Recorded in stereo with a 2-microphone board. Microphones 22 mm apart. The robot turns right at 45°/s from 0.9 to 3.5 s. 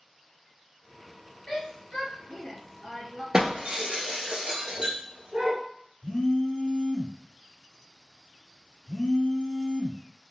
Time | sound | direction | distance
1.5 | a shout | 20° left (ahead or behind) | 1.2 m
3.3 | breaking glass | 45° right (ahead or behind) | 1.1 m
6.0 | a phone buzzing | 45° left (ahead or behind) | 1.3 m